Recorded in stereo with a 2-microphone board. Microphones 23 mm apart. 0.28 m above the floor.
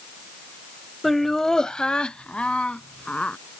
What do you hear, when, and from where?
1.0 s laughter: 5° left (ahead or behind); by 3.4 s 65° left (ahead or behind)